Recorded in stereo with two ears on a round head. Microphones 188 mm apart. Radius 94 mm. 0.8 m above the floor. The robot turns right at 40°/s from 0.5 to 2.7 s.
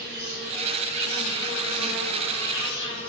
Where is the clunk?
No clunk in this recording.